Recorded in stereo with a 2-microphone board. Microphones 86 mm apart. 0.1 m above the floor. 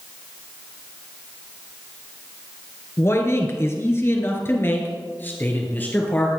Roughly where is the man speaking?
Left.